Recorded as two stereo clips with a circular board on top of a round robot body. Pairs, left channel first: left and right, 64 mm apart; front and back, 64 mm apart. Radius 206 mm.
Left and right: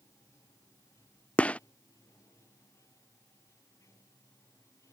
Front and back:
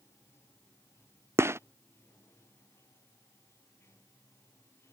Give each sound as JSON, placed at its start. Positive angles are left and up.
{"t": 0.0, "sound": "running water", "azimuth_deg": 45}
{"t": 1.4, "sound": "a gunshot", "azimuth_deg": 155}